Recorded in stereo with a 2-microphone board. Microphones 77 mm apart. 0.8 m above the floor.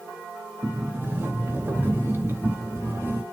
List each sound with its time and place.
0.6 s a sliding door: 30° right (ahead or behind), 0.5 m